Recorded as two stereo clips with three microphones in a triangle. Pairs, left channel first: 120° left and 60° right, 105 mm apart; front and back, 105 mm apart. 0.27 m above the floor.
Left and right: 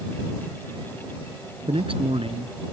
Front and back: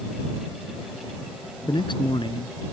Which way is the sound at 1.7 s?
35° right.